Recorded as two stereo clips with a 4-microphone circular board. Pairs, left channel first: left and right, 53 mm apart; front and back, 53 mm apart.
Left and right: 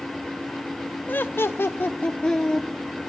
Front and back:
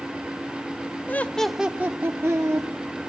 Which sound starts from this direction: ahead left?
Laughter, at 1.1 s.